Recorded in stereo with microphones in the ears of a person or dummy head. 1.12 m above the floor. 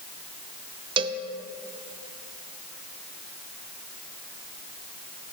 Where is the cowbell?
20° right (ahead or behind), 0.6 m.